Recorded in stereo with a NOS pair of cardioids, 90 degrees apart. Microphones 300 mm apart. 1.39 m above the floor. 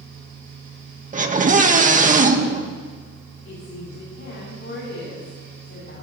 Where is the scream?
25° right, 2 m.